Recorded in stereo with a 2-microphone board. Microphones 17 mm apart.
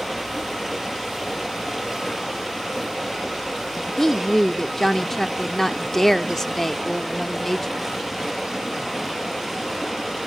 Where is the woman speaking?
20° left (ahead or behind), 0.8 m.